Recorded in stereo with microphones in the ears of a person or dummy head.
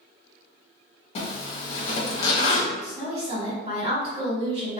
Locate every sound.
1.1 s a zipper: 40° left (ahead or behind), 0.8 m
2.8 s a woman speaking: 40° right (ahead or behind), 1.6 m